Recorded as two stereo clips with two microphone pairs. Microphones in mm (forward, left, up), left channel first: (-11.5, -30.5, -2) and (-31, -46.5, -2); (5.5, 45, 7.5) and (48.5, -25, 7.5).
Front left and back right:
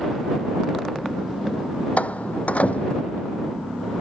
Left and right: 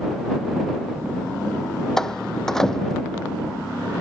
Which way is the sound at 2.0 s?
40° left.